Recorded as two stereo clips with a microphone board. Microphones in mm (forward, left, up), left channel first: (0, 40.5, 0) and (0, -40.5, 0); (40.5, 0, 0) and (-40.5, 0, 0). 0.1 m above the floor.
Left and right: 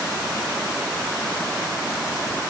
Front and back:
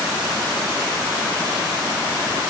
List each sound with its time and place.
Only background noise.